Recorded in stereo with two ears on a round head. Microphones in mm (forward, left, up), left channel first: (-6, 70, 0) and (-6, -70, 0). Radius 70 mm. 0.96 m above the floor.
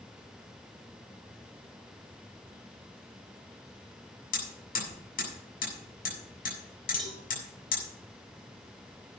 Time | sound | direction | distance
4.3 | hammering | 65° left (ahead or behind) | 7 m
7.0 | a cowbell | centre (ahead or behind) | 4 m